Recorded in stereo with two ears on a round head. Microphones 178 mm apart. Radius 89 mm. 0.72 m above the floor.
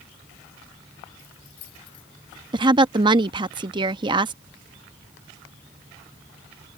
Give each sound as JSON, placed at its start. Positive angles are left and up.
{"t": 1.2, "sound": "keys jangling", "side_deg": 85}
{"t": 2.5, "sound": "a woman speaking", "side_deg": -25}